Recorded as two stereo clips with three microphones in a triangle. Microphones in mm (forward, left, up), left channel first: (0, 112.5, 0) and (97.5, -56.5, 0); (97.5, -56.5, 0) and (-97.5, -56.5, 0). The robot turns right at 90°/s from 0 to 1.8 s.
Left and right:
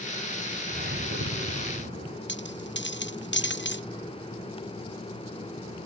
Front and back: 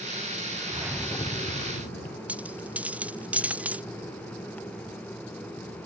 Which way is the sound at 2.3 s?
95° left.